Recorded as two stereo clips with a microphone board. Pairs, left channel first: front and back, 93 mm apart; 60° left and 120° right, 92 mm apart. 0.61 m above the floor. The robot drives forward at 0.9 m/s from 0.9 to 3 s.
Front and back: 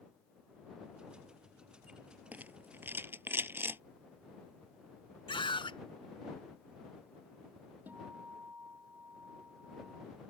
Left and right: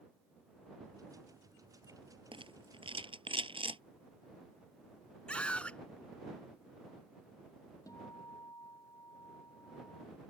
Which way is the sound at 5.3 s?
15° right.